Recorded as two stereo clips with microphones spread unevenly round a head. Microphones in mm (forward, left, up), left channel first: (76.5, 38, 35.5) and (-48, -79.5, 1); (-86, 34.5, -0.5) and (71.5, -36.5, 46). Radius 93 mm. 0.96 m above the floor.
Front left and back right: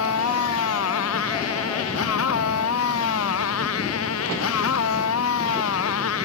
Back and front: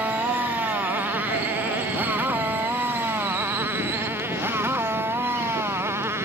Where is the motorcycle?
55° left; by 6.3 s 50° left.